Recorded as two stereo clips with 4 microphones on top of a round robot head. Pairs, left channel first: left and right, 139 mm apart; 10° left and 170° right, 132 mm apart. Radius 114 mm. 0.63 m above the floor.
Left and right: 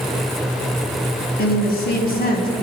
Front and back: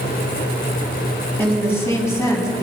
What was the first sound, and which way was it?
A woman speaking, 85° left.